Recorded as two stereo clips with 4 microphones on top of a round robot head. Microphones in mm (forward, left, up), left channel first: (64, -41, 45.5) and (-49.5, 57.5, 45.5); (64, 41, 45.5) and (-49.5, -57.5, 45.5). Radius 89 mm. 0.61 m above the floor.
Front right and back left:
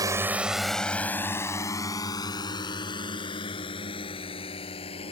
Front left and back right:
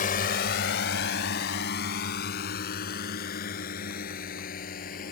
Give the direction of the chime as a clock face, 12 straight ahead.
I don't hear a chime.